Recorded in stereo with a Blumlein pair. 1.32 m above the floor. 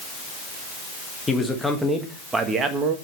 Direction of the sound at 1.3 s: 10° left.